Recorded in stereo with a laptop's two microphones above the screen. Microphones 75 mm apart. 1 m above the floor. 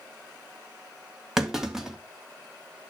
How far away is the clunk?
About 2.5 m.